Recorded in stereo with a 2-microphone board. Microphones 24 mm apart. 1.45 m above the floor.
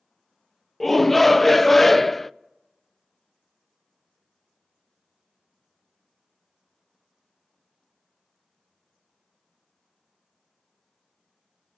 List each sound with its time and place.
0.8 s a shout: 10° left (ahead or behind), 0.5 m